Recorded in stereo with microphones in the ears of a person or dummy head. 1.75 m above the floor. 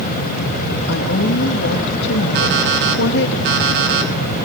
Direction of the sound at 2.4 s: 60° right (ahead or behind).